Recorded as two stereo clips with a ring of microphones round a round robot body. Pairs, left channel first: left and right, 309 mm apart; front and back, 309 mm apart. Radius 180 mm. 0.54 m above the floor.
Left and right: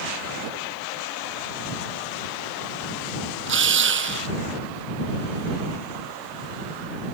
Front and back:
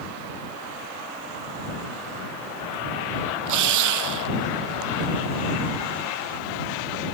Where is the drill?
140° right.